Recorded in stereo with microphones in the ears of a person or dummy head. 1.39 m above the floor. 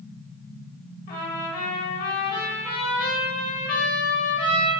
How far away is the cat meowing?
I don't hear a cat meowing.